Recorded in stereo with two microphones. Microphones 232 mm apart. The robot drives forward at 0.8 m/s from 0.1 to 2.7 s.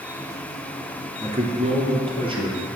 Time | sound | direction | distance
1.2 | a man speaking | 30° right (ahead or behind) | 1.8 m